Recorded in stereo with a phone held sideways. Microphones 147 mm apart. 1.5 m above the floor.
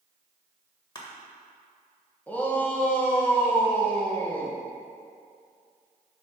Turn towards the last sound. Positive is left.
turn(degrees=10)  # may be behind; listen again after turning